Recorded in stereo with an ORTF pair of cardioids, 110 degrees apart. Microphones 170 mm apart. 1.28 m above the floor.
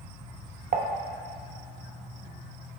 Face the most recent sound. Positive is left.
turn(degrees=-50)